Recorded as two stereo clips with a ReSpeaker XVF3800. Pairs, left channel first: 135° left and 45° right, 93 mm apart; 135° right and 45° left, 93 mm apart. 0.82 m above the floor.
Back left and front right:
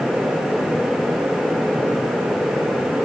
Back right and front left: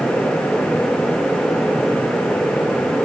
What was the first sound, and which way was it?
Only background noise.